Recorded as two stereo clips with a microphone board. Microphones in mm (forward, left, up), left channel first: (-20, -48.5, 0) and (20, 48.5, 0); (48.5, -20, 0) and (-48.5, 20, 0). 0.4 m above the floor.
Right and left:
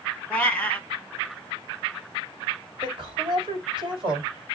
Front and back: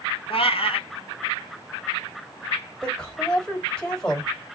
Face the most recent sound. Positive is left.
turn(degrees=55)